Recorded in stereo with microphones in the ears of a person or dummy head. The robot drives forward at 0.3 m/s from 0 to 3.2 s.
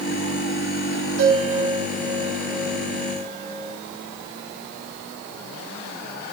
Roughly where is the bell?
Right.